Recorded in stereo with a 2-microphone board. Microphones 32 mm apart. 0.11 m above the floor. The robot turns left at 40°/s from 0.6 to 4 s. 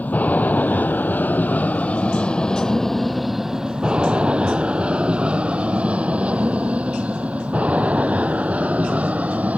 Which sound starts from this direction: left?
An aircraft, at 0.0 s.